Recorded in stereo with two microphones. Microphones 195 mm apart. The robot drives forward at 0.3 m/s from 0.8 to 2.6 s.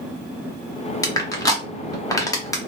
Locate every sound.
1.0 s crushing: 15° left (ahead or behind), 0.7 m